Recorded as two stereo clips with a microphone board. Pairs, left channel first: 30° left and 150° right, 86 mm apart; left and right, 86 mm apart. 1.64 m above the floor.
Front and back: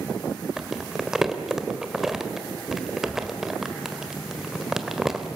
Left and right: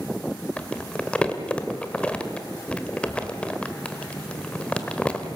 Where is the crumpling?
135° left, 1.4 m.